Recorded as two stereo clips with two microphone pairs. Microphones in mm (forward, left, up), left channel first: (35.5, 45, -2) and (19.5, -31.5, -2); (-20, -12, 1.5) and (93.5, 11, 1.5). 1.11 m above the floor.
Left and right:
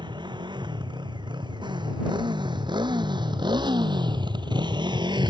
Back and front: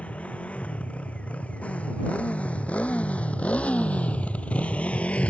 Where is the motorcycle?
90° right.